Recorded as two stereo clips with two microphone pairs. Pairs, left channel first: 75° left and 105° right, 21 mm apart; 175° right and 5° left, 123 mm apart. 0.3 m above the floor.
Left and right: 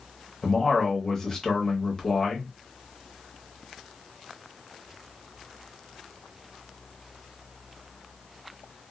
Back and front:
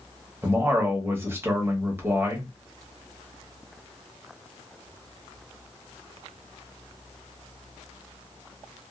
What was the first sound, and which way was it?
A man speaking, 40° left.